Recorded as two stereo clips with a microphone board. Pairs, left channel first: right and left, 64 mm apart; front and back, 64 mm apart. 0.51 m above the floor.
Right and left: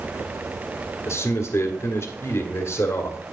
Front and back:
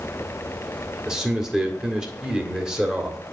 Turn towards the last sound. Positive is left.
turn(degrees=-100)